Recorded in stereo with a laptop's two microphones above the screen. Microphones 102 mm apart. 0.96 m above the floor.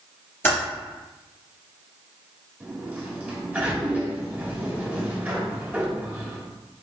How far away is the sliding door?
About 1.9 m.